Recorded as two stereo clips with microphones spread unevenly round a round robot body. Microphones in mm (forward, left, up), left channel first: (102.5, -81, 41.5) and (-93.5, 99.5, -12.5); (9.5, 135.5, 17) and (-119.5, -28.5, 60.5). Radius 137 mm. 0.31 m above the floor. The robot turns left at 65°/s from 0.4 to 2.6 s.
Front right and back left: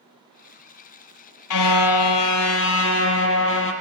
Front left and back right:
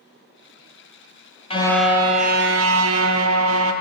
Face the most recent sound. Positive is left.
turn(degrees=-90)